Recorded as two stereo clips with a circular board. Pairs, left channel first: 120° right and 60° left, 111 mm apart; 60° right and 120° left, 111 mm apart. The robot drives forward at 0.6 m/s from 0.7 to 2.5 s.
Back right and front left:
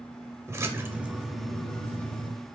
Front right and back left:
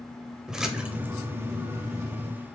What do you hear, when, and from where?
0.5 s a splash: 45° left, 0.5 m; by 2.3 s 170° left, 1.0 m